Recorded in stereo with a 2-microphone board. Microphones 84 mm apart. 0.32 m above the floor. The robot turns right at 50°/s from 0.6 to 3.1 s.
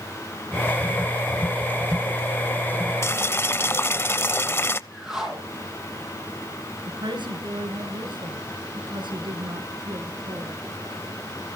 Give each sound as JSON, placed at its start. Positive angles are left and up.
{"t": 3.0, "sound": "boiling", "side_deg": 35, "distance_m": 0.6}
{"t": 4.9, "sound": "a whoosh", "side_deg": -10, "distance_m": 6.5}
{"t": 6.9, "sound": "a woman speaking", "side_deg": -65, "distance_m": 5.0}